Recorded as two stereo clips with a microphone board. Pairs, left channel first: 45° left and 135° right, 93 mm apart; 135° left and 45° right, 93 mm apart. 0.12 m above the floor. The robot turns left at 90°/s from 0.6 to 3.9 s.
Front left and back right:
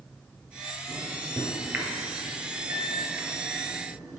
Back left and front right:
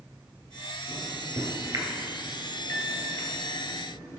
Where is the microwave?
Straight ahead, 1.7 m; by 4.2 s 85° left, 1.7 m.